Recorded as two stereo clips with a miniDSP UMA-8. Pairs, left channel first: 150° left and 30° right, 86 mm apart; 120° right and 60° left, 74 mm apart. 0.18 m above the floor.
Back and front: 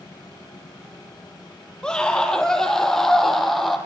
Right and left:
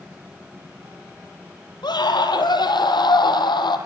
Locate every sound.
1.8 s a scream: 130° right, 6 m; by 3.8 s 120° right, 7 m